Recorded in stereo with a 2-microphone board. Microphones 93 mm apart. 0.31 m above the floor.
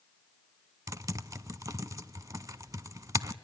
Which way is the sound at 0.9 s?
40° right (ahead or behind).